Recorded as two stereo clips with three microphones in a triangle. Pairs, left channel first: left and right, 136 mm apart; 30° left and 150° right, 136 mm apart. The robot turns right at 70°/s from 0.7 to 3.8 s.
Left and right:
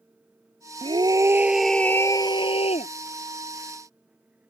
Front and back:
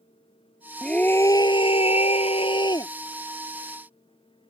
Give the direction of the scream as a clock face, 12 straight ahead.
2 o'clock.